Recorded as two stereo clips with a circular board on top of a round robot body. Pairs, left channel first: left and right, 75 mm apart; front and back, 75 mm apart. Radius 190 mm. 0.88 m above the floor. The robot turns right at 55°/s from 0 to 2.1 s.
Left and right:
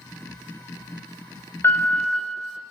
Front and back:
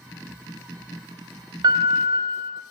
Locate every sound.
1.6 s a piano: 150° left, 0.7 m; by 2.6 s 175° left, 0.7 m